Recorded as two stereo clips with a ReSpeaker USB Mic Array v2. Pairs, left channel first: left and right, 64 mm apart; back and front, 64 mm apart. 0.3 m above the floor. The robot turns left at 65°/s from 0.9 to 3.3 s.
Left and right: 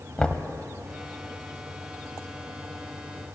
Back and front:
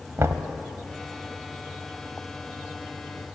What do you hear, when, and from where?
0.2 s knocking: 20° left, 1.1 m